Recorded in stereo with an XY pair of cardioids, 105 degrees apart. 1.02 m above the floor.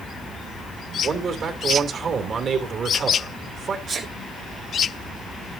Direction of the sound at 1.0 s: 50° right.